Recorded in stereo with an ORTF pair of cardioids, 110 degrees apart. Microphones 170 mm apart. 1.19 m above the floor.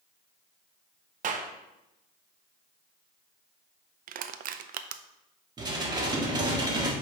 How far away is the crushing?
About 0.6 m.